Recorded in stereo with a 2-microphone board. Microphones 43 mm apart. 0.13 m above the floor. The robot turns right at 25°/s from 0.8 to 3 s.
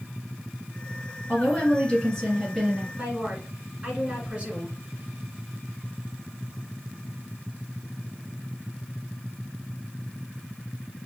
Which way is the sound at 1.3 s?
135° left.